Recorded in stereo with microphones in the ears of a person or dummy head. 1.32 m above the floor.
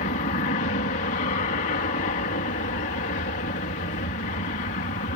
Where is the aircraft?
40° left (ahead or behind).